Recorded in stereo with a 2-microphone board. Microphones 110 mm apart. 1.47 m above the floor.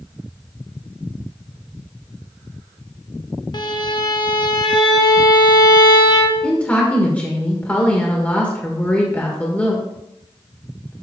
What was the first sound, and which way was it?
A violin, 40° left (ahead or behind).